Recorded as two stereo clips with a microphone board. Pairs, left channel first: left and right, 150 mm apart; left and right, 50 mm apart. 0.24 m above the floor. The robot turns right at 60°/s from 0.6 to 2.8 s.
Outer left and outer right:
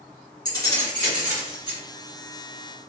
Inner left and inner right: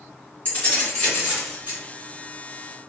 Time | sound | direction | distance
0.5 | keys jangling | 150° left | 1.8 m